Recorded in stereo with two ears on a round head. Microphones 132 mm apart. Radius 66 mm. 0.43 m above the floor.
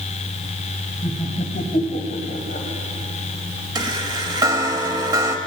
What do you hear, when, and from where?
1.0 s laughter: 45° left (ahead or behind), 1.7 m
3.8 s a chime: 25° right (ahead or behind), 0.8 m